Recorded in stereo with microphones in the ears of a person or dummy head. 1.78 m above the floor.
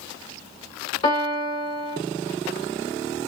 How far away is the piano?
About 1.3 m.